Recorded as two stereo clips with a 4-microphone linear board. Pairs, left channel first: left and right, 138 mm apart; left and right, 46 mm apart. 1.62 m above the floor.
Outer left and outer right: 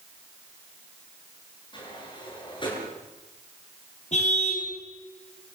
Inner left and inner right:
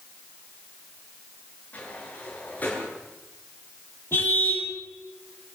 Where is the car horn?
55° left (ahead or behind), 5.5 m.